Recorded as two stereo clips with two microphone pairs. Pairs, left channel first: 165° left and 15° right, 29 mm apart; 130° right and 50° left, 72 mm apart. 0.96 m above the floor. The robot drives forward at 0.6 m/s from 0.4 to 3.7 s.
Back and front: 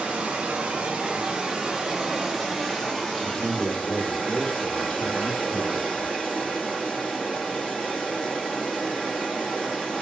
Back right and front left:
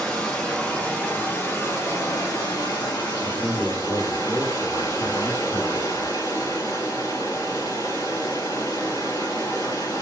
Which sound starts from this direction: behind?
A man speaking, at 3.2 s.